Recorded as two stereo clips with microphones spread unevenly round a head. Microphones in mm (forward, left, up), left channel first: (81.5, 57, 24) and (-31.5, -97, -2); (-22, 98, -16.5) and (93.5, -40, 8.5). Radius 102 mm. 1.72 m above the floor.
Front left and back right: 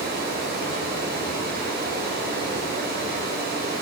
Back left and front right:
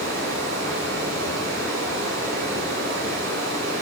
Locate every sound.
0.0 s running water: 85° right, 6 m